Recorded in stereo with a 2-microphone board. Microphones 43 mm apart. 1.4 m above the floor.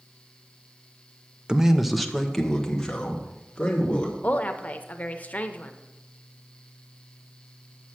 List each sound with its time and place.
1.5 s a man speaking: 20° right (ahead or behind), 0.5 m; by 4.1 s 20° left (ahead or behind), 2.5 m
4.2 s a woman speaking: 40° left (ahead or behind), 0.7 m